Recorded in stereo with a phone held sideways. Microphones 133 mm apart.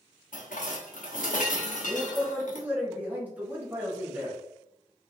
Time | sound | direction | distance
0.3 | dishes clattering | 80° left | 0.8 m
1.9 | a man speaking | 10° right (ahead or behind) | 1.5 m